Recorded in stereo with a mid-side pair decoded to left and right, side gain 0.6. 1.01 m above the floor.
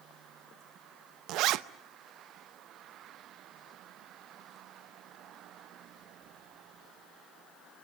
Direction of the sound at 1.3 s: 65° right.